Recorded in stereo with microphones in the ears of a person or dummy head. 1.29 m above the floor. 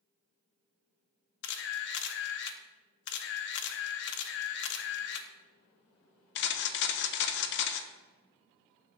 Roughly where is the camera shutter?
Left.